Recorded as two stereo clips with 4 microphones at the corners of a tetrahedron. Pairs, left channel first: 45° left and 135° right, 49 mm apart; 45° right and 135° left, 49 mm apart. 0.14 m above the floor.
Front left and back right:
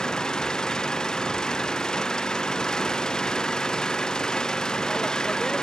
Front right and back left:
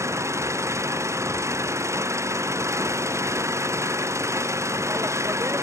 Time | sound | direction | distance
0.0 | an engine running | 120° left | ?